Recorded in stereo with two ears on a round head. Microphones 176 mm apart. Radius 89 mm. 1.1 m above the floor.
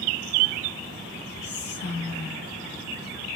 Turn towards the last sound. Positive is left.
turn(degrees=55)  # may be behind; listen again after turning